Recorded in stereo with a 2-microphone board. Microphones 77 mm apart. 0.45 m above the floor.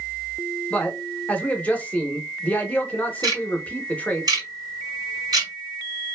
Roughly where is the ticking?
Right.